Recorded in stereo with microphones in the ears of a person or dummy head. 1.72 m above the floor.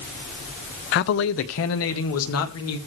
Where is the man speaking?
55° left (ahead or behind), 0.7 m; by 2.8 s 80° left, 2.5 m.